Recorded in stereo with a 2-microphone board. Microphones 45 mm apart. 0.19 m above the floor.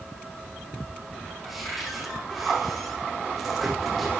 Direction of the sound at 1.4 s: Centre (ahead or behind).